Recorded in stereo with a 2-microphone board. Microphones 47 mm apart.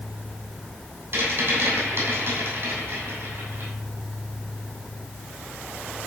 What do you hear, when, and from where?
1.1 s a rattle: 50° right (ahead or behind), 6.5 m